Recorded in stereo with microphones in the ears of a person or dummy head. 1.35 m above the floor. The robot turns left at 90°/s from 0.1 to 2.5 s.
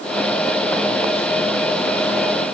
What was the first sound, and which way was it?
Only background noise.